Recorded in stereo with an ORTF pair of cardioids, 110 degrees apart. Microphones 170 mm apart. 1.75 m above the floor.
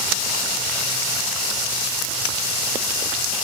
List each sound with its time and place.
Only background noise.